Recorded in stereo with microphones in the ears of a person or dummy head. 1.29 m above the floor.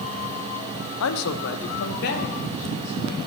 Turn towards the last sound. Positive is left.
turn(degrees=40)  # may be behind; listen again after turning